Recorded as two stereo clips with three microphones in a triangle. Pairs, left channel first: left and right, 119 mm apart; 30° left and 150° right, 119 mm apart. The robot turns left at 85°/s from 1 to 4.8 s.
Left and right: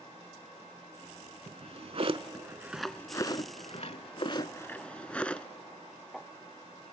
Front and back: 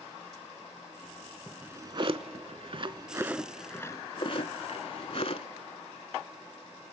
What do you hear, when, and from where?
1.5 s a drawer: 65° right, 0.6 m; by 5.5 s 10° left, 0.6 m